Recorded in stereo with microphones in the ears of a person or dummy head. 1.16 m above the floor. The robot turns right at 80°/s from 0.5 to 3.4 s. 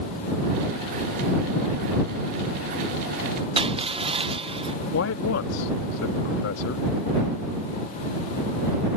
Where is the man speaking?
65° left (ahead or behind).